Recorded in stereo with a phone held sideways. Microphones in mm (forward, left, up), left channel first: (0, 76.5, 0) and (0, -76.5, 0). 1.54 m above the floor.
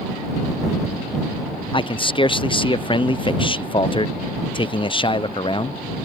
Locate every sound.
1.7 s a man speaking: 35° left (ahead or behind)